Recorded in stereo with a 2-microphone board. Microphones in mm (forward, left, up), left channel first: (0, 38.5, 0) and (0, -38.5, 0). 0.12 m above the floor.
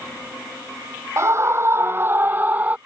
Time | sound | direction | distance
1.2 | a scream | 40° right (ahead or behind) | ?